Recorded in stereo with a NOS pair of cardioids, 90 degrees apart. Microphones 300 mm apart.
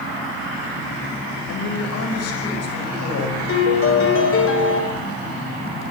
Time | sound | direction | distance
1.5 | a man speaking | 60° left | 5.5 m
3.5 | a piano | 45° left | 6 m